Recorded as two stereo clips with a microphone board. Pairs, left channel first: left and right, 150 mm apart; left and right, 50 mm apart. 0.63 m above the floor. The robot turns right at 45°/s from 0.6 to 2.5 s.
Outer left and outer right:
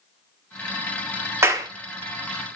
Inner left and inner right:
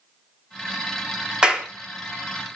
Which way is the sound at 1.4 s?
15° right (ahead or behind).